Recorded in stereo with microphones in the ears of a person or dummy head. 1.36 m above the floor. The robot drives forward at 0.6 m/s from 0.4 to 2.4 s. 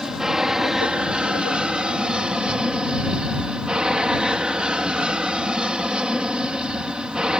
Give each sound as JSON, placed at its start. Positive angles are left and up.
{"t": 0.0, "sound": "an aircraft", "side_deg": -5}